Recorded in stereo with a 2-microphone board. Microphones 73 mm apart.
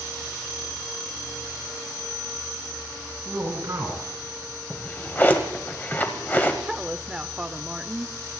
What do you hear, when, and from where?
3.2 s a man speaking: 45° right (ahead or behind), 4 m
4.7 s a drawer: 25° left (ahead or behind), 1.4 m
6.6 s a woman speaking: 10° right (ahead or behind), 0.8 m